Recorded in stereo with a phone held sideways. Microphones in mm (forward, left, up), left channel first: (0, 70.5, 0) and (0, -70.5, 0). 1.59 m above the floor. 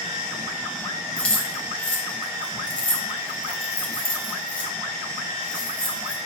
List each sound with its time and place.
1.2 s keys jangling: 5° left (ahead or behind), 0.6 m